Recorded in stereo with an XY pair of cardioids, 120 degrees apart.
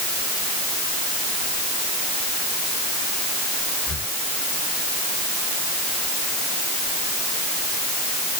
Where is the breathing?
30° left.